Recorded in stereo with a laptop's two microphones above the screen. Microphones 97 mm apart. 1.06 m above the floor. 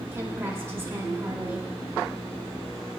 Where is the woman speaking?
25° right (ahead or behind), 2.5 m.